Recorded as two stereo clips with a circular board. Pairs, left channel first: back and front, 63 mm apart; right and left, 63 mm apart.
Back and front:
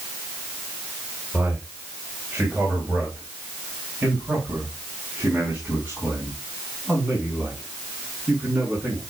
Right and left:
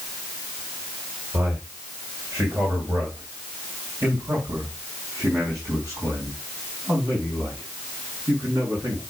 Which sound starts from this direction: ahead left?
A man speaking, at 1.3 s.